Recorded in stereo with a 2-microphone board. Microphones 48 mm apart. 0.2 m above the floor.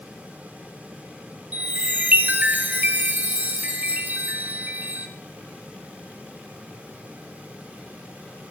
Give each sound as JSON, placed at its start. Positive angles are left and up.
{"t": 1.5, "sound": "a chime", "side_deg": -40, "distance_m": 0.9}